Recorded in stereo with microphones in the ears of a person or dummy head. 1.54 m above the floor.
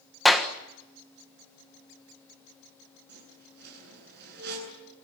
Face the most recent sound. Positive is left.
turn(degrees=-70)  # may be behind; listen again after turning